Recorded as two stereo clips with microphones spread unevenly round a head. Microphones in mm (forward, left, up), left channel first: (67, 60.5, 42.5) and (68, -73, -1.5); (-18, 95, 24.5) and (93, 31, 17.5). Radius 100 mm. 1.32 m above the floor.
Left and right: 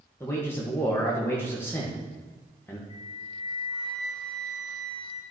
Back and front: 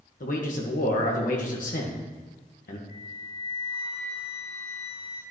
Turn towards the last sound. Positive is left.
turn(degrees=165)